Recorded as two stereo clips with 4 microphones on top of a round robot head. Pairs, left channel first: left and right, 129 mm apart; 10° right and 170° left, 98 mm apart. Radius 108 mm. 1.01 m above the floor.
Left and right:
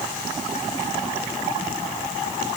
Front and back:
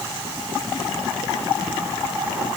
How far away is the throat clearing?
No throat clearing in this recording.